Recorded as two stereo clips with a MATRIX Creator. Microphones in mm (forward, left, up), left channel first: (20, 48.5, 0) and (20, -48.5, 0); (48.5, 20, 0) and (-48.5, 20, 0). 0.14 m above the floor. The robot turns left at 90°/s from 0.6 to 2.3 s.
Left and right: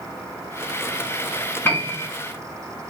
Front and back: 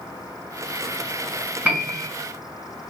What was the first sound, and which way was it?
A piano, 125° left.